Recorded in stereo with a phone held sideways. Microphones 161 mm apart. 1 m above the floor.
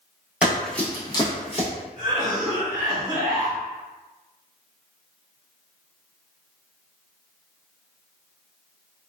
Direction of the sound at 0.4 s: 10° right (ahead or behind).